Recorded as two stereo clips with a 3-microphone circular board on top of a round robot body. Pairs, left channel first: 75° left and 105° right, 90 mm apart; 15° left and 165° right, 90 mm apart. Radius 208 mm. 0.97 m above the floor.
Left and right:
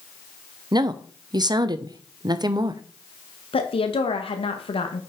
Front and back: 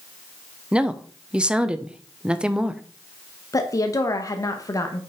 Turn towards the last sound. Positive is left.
turn(degrees=70)